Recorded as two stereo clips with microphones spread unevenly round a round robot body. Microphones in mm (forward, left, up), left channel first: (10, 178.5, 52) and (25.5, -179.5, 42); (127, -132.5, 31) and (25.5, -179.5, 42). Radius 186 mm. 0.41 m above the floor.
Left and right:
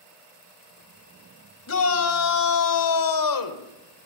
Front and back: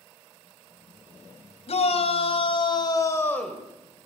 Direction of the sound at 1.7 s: 40° left.